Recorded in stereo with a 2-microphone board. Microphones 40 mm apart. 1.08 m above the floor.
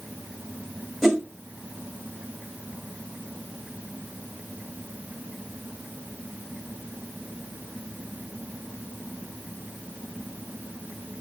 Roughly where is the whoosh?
Centre.